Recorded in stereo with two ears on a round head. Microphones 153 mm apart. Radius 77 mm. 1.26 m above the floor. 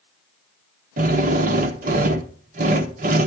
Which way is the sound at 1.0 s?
45° right (ahead or behind).